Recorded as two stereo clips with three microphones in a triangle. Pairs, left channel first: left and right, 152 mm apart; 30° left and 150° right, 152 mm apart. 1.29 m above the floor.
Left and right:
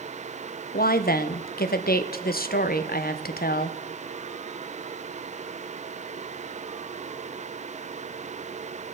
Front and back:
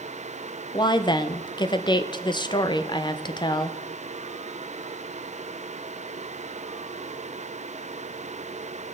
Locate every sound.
0.7 s a woman speaking: 90° left, 0.7 m